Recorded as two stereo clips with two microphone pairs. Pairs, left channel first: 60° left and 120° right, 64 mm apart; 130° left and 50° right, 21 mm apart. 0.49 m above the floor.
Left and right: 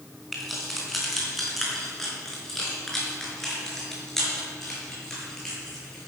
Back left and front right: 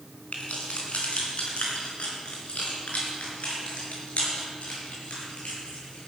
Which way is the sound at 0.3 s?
155° left.